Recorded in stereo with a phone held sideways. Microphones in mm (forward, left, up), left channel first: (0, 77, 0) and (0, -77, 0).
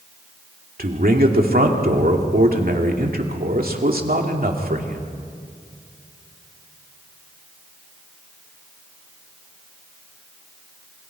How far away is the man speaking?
About 2.5 m.